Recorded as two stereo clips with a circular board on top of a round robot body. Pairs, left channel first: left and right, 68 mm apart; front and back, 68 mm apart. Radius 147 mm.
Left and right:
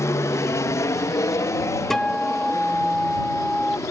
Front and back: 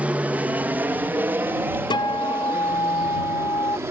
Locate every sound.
0.0 s an aircraft: 115° left; by 3.9 s 130° left
1.9 s a guitar: 5° left